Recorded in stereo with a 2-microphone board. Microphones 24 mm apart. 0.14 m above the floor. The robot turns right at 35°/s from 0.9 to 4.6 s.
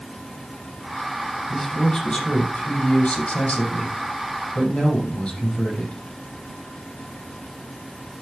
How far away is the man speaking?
About 6 m.